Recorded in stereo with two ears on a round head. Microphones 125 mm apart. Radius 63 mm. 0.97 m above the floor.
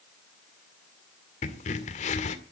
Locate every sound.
1.4 s a crack: 55° left (ahead or behind), 1.8 m